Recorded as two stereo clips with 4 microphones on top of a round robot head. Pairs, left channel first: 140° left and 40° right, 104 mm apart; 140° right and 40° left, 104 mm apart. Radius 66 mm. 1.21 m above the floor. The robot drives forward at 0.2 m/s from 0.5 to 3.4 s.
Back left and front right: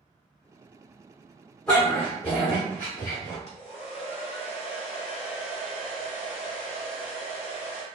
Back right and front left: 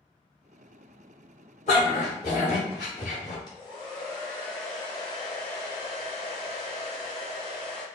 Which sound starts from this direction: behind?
A hair dryer, at 3.5 s.